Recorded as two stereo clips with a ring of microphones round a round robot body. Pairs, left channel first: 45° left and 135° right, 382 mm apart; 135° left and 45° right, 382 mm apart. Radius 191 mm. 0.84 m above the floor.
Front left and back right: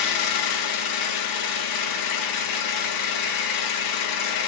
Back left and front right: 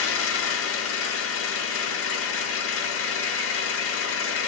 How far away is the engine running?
About 0.9 m.